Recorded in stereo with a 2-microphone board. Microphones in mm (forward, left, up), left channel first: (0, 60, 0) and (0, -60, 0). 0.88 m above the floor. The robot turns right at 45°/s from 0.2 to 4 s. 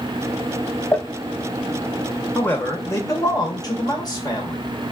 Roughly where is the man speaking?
Ahead.